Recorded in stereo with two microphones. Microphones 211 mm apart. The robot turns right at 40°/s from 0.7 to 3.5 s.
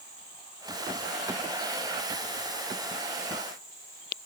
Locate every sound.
0.0 s an insect: 130° right, 7 m; by 4.3 s 15° right, 7 m